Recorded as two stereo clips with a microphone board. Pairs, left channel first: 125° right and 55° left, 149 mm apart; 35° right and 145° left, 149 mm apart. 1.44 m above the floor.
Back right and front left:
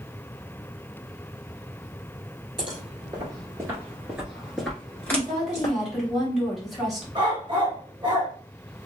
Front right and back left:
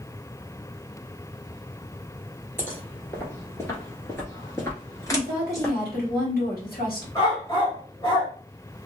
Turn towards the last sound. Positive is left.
turn(degrees=10)